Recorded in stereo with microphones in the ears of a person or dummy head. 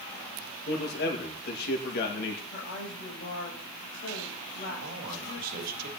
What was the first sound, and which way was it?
A man speaking, 55° left (ahead or behind).